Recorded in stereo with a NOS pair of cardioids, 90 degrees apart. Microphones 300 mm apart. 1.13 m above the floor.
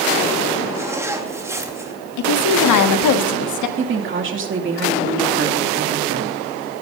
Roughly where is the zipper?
Ahead.